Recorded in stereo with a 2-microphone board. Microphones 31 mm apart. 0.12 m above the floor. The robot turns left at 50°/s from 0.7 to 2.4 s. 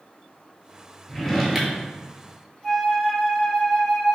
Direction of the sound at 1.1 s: 15° left.